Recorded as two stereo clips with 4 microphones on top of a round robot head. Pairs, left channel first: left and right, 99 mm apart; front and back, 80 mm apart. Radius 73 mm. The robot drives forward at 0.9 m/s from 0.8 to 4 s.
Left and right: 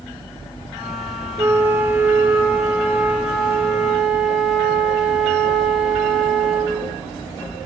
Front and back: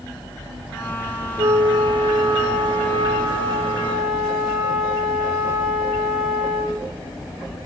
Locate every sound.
1.4 s a flute: 155° right, 1.2 m; by 6.8 s 170° right, 3.5 m